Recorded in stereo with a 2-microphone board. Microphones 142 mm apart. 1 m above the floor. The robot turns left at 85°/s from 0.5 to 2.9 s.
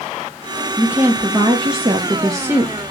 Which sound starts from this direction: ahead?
A woman speaking, at 0.8 s.